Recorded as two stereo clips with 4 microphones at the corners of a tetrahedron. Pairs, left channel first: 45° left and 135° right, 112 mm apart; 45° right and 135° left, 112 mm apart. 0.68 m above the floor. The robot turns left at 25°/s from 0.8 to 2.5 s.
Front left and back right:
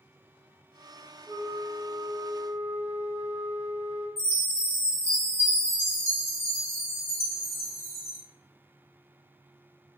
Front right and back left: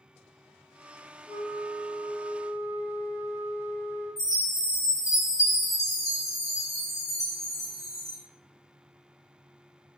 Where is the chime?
80° right, 1.0 m.